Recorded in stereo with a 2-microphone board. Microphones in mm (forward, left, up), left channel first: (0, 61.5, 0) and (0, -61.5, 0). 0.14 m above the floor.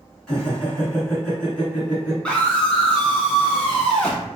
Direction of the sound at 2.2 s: 10° left (ahead or behind).